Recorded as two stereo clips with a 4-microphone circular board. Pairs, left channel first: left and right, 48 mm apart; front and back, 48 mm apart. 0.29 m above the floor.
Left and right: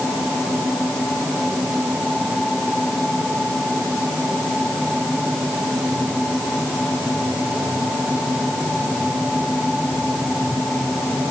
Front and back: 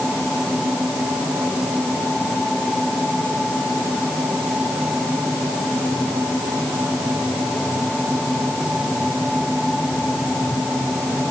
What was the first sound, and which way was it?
Only background noise.